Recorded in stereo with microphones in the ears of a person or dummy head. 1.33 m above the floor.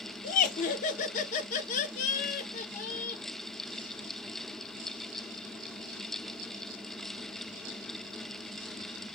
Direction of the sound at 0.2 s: 45° left (ahead or behind).